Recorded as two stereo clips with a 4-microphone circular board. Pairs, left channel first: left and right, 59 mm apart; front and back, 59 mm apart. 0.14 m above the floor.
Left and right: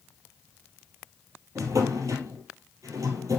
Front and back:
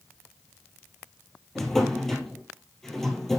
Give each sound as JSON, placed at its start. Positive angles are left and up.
{"t": 1.6, "sound": "a drawer", "azimuth_deg": -85, "distance_m": 1.8}